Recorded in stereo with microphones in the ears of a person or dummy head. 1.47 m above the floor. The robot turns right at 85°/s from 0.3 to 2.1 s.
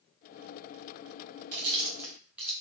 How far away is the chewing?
About 1.0 m.